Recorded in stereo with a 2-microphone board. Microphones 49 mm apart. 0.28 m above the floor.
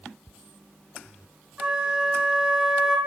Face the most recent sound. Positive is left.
turn(degrees=-20)  # may be behind; listen again after turning